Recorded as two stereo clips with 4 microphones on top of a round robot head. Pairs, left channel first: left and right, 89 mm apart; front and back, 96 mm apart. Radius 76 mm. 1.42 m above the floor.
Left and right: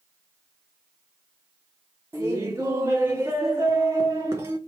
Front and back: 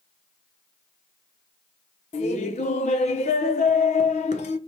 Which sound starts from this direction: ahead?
Laughter, at 2.1 s.